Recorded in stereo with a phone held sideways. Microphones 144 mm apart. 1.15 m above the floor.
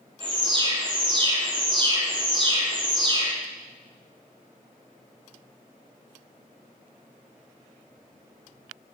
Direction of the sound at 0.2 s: 35° right (ahead or behind).